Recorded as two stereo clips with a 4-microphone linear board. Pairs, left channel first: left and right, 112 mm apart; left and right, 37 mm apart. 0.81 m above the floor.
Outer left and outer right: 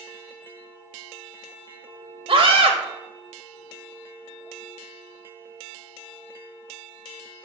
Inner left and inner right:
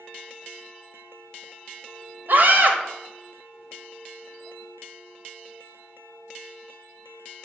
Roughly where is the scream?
Right.